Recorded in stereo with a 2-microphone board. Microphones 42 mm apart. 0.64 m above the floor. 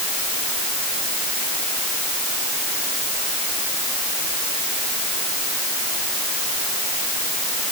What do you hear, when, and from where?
Only background noise.